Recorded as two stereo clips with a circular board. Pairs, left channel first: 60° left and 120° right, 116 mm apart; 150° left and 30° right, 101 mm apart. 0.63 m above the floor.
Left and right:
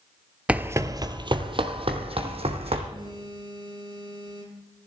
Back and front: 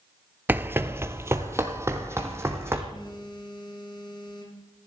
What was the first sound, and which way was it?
Running footsteps, 60° right.